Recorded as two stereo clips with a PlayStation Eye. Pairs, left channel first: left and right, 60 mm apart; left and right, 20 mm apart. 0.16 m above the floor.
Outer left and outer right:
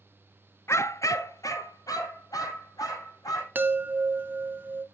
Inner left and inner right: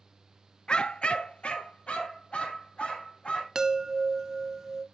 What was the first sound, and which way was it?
A dog barking, 50° left (ahead or behind).